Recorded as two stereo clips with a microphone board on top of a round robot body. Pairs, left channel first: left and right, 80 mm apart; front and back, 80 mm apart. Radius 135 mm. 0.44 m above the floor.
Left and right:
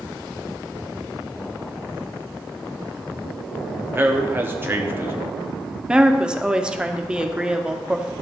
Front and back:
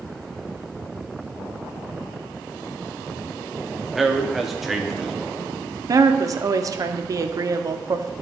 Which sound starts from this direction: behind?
A woman speaking, at 5.9 s.